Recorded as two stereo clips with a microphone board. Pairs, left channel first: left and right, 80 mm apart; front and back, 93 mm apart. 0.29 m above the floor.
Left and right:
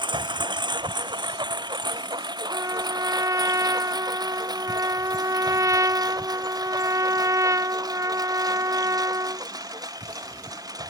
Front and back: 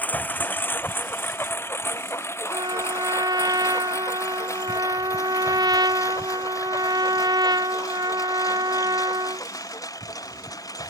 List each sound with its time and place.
0.0 s a lawn mower: 75° right; by 10.9 s 50° right
2.5 s a trumpet: 140° right